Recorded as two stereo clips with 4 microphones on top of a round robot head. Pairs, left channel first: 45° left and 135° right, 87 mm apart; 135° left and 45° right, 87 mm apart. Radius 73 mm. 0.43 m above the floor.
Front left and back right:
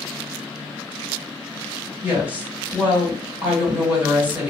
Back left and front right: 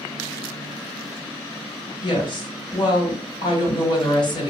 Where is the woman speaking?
155° left, 1.8 m.